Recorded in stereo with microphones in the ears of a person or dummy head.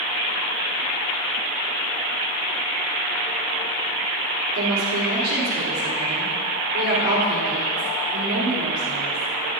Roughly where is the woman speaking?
Right.